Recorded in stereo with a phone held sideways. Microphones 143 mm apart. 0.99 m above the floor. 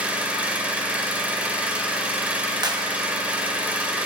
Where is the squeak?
I don't hear a squeak.